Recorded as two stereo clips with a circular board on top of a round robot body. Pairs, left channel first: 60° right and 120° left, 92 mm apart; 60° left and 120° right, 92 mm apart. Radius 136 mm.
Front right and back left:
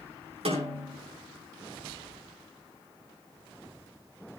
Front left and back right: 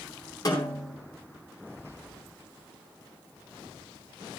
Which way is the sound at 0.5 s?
115° left.